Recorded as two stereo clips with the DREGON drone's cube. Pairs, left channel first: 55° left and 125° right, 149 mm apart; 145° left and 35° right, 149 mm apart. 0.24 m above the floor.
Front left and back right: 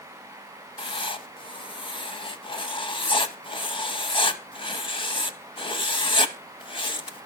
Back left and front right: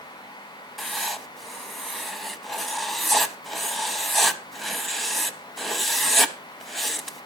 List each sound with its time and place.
0.8 s writing: 55° left, 0.5 m